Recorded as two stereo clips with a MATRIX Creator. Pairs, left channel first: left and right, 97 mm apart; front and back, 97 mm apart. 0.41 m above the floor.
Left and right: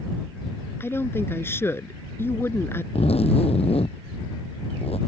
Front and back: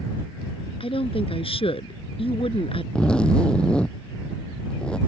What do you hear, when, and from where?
0.8 s a woman speaking: 25° left
3.0 s a zipper: 80° left